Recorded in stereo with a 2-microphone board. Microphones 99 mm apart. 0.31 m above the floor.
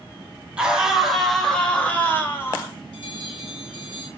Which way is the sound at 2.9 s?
45° left (ahead or behind).